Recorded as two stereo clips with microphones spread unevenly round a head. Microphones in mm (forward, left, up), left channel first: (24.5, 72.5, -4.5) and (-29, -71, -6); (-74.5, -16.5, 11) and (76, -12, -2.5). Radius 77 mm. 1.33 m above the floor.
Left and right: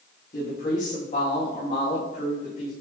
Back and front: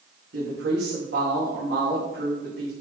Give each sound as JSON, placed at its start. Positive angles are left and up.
{"t": 0.3, "sound": "a woman speaking", "azimuth_deg": 25, "distance_m": 2.0}